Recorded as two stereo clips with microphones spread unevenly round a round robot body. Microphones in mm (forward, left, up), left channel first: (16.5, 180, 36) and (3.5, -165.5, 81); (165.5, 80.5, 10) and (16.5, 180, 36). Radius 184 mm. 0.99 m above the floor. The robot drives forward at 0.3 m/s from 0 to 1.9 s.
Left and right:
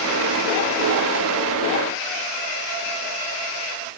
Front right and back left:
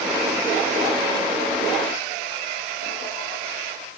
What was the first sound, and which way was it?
Only background noise.